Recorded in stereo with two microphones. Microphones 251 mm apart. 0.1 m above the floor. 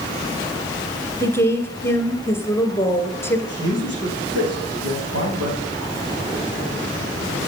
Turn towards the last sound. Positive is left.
turn(degrees=-70)  # may be behind; listen again after turning